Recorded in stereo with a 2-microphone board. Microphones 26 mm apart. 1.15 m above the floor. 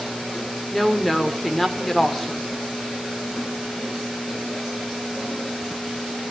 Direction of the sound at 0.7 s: 5° left (ahead or behind).